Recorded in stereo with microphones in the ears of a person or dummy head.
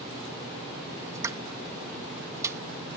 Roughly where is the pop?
Centre.